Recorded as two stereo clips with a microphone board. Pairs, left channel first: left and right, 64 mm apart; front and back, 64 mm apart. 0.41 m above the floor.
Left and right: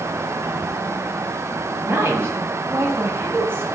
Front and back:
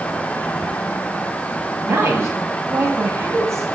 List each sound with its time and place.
1.8 s a woman speaking: 140° right, 2.5 m